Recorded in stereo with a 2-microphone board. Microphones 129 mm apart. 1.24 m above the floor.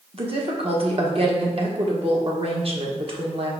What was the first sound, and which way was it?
A woman speaking, 50° right (ahead or behind).